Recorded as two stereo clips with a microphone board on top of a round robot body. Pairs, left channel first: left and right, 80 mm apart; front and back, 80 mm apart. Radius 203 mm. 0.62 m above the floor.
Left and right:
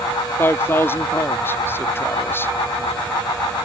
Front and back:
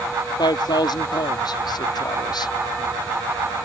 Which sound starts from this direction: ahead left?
A man speaking, at 0.4 s.